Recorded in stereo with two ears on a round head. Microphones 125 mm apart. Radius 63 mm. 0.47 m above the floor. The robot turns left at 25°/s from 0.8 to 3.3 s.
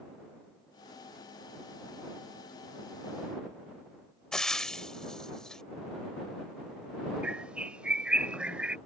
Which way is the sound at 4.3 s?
5° left (ahead or behind).